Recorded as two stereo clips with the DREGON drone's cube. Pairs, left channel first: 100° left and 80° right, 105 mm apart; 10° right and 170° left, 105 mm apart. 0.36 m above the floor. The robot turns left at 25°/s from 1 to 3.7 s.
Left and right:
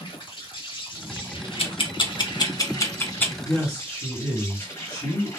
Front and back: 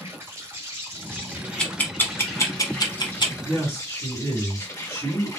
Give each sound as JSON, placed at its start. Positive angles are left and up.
{"t": 0.0, "sound": "an insect", "azimuth_deg": 110, "distance_m": 1.2}
{"t": 1.6, "sound": "ticking", "azimuth_deg": 70, "distance_m": 0.8}
{"t": 3.4, "sound": "a woman speaking", "azimuth_deg": 50, "distance_m": 2.0}